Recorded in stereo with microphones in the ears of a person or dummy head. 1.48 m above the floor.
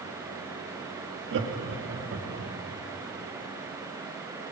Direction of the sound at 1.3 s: 65° right (ahead or behind).